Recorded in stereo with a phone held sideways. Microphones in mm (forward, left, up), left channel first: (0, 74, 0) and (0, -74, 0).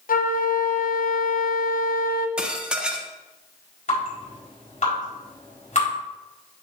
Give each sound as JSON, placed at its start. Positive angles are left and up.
{"t": 0.1, "sound": "a flute", "side_deg": 70, "distance_m": 0.7}
{"t": 2.4, "sound": "dishes clattering", "side_deg": -5, "distance_m": 0.7}
{"t": 3.9, "sound": "dripping", "side_deg": 55, "distance_m": 4.0}